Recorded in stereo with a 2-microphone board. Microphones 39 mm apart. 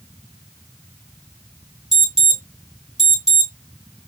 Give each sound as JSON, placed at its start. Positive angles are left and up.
{"t": 1.9, "sound": "an alarm", "side_deg": -15, "distance_m": 3.0}